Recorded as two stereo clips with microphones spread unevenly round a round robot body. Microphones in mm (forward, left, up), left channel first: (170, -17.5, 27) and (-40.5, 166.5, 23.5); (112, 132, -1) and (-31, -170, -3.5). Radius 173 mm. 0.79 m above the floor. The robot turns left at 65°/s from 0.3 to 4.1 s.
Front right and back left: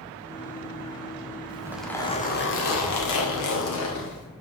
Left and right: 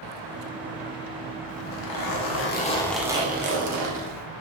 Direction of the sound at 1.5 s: 70° left.